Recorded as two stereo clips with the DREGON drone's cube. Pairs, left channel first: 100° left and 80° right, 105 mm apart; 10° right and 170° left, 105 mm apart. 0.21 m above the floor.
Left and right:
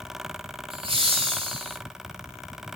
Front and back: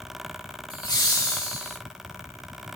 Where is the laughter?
50° right, 4 m; by 1.8 s 60° right, 3.5 m.